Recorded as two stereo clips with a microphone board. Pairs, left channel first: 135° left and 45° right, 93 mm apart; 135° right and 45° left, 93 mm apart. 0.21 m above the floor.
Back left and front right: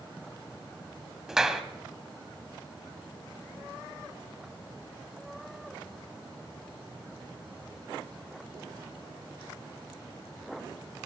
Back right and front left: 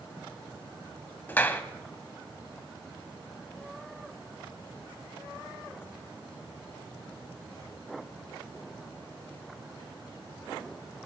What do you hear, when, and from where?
1.3 s a clap: 120° right, 0.9 m